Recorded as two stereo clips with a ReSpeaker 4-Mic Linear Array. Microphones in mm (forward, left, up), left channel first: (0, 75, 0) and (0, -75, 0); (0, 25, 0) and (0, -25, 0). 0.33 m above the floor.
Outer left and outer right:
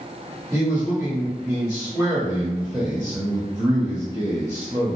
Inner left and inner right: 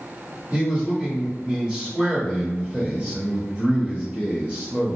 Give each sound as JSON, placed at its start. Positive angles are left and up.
{"t": 0.5, "sound": "a man speaking", "side_deg": -25, "distance_m": 1.1}